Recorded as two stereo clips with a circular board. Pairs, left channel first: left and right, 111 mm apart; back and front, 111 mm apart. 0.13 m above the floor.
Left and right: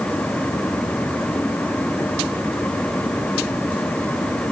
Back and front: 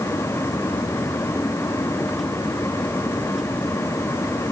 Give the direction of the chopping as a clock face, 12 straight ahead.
No chopping in this recording.